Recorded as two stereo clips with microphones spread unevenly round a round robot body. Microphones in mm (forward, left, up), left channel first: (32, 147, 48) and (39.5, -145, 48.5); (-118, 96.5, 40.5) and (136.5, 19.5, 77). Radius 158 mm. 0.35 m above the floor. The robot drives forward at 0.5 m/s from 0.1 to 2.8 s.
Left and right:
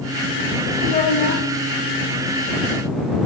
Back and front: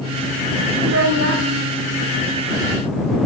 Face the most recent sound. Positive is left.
turn(degrees=50)